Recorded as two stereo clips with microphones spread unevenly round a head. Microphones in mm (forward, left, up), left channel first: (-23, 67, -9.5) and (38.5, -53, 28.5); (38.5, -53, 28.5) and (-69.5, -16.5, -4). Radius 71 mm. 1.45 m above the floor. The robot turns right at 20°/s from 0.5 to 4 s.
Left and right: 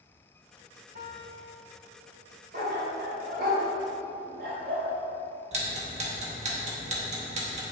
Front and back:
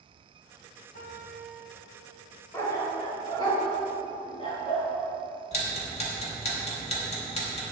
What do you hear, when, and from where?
0.9 s a piano: 35° right, 2.5 m; by 2.2 s 5° right, 2.5 m
2.5 s a dog barking: 80° right, 3 m; by 4.9 s 50° right, 3 m
5.5 s ticking: 35° right, 2.5 m